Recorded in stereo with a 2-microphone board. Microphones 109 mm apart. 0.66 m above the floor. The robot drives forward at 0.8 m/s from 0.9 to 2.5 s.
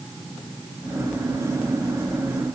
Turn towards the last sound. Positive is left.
No sound to turn to.